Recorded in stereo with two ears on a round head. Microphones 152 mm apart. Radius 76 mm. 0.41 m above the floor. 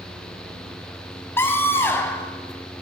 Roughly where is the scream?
Centre.